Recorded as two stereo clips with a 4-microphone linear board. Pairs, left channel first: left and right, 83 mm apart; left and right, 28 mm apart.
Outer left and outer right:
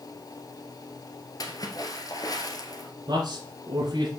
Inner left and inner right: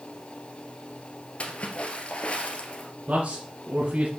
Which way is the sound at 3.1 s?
55° right (ahead or behind).